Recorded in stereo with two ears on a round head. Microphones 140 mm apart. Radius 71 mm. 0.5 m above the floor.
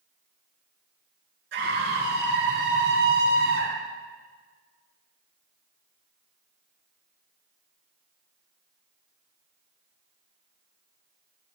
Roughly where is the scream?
Right.